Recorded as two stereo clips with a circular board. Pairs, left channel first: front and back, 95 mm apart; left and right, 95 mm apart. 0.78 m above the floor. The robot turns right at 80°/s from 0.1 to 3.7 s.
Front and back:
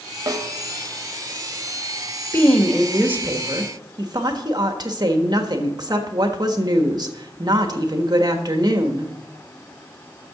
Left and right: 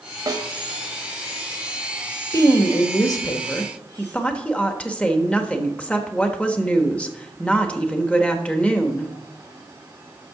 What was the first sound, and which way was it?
A snare drum, 135° right.